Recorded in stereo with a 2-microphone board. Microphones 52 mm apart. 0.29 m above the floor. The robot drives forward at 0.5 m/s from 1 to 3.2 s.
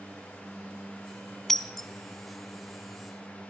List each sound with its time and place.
1.5 s breaking glass: 10° left (ahead or behind), 0.8 m; by 1.9 s 5° left (ahead or behind), 1.0 m